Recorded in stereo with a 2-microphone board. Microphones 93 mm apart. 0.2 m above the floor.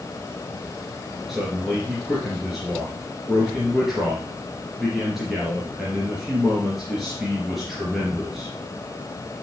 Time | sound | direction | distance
1.3 | a man speaking | centre (ahead or behind) | 3 m